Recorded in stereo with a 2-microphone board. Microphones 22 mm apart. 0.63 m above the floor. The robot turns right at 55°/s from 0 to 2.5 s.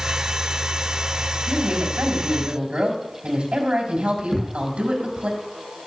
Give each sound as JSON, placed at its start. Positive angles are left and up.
{"t": 1.5, "sound": "a woman speaking", "azimuth_deg": -115, "distance_m": 5.0}
{"t": 4.3, "sound": "a thud", "side_deg": -15, "distance_m": 9.5}